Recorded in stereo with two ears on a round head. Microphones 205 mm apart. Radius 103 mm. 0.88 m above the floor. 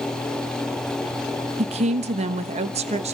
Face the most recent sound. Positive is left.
turn(degrees=-30)  # may be behind; listen again after turning